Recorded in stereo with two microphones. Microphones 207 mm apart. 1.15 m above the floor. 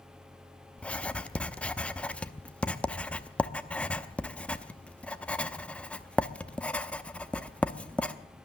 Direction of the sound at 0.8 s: 5° left (ahead or behind).